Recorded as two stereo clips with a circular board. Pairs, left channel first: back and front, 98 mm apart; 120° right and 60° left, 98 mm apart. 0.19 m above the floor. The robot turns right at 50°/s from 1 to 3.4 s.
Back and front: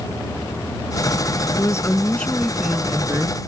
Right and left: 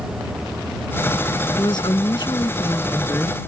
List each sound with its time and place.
1.6 s a woman speaking: 140° right; by 3.4 s 50° right